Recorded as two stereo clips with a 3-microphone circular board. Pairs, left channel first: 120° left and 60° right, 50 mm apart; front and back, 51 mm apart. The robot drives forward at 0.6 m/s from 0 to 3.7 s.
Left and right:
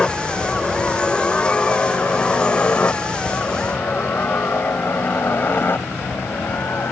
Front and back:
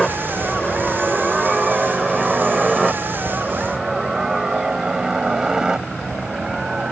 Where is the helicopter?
75° left; by 6.9 s 110° left.